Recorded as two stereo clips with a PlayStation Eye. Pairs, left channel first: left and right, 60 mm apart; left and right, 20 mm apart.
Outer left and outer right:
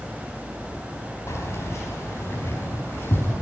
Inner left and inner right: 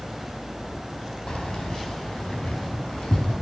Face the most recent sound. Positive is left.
turn(degrees=40)  # may be behind; listen again after turning